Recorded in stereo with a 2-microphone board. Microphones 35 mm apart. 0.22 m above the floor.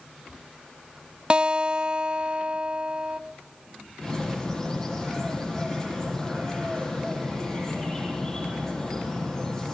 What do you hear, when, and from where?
1.3 s a guitar: 30° right (ahead or behind), 0.6 m
4.0 s a bird: 15° left (ahead or behind), 5.5 m